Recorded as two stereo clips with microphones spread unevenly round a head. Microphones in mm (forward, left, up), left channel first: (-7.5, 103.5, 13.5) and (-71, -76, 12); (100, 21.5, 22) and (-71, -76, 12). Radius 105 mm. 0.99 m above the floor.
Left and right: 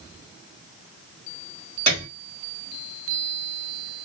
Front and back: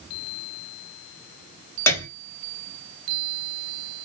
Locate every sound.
1.9 s a piano: 50° right, 1.2 m